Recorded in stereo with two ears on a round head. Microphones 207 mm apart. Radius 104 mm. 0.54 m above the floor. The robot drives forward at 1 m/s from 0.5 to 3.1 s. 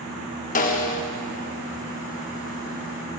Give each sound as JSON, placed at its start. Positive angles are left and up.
{"t": 0.6, "sound": "a snare drum", "side_deg": 35, "distance_m": 0.7}